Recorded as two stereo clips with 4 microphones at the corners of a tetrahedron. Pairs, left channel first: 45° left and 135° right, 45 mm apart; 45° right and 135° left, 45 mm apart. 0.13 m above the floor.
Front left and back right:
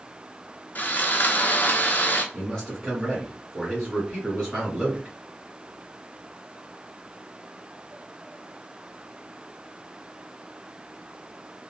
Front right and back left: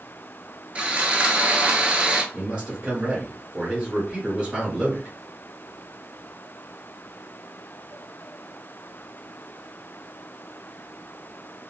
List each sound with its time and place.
0.8 s sawing: 80° left, 0.7 m
2.3 s a man speaking: 115° left, 1.8 m